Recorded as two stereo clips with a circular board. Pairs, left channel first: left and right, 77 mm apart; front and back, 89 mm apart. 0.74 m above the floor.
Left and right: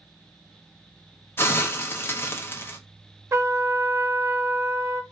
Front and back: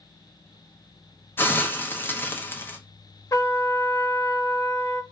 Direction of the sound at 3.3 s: 45° right.